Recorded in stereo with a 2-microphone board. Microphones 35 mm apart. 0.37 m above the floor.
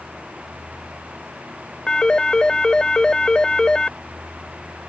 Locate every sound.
1.9 s a phone ringing: 25° left (ahead or behind)